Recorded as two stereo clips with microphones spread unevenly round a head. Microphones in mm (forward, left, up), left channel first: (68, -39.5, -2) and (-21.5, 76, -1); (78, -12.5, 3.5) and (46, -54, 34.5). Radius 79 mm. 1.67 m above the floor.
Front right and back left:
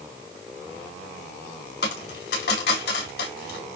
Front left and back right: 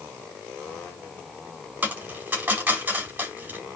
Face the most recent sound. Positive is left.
turn(degrees=-80)